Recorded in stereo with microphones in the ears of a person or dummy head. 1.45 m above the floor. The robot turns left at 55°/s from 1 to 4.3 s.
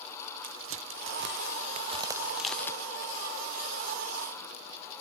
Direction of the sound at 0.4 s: 60° right (ahead or behind).